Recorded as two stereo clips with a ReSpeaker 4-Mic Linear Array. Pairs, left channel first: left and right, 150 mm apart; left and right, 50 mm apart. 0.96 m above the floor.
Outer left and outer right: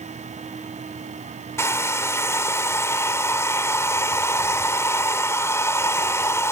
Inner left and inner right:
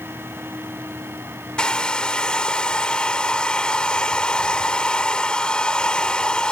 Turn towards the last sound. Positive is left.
turn(degrees=15)  # may be behind; listen again after turning